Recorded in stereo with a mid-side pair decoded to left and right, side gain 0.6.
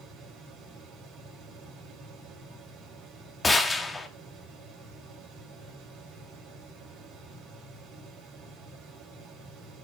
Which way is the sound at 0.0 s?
60° right.